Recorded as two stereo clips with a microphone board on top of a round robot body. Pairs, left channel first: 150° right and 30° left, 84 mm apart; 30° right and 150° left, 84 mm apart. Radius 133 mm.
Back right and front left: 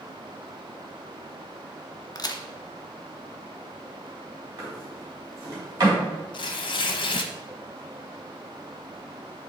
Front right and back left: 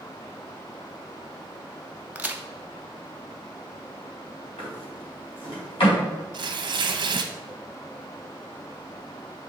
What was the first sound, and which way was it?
A crack, 140° right.